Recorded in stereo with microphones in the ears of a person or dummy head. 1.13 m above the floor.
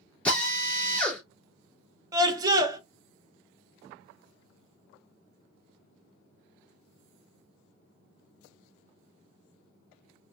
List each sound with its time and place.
0.2 s a drill: 10° left (ahead or behind), 2 m
2.1 s a scream: 20° right (ahead or behind), 1.0 m